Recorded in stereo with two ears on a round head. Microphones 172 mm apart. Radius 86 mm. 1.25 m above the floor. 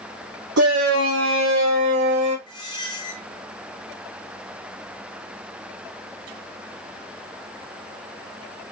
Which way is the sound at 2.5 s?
25° left (ahead or behind).